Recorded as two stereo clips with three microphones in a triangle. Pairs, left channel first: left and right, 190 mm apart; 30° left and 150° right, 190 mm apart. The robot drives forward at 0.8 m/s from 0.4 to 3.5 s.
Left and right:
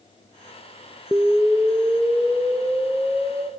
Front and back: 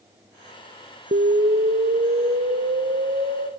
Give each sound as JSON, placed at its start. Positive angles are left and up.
{"t": 1.1, "sound": "an explosion", "azimuth_deg": -175, "distance_m": 0.7}